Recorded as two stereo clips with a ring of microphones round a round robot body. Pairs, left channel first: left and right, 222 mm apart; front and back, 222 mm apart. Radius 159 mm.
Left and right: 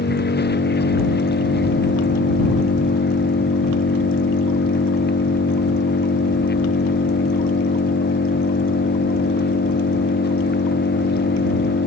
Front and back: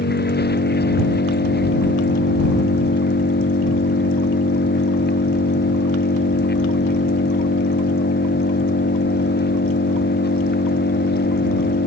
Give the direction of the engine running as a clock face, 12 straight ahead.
10 o'clock.